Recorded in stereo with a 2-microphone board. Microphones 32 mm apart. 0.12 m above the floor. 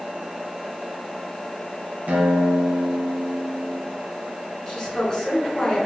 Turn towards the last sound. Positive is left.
turn(degrees=20)  # may be behind; listen again after turning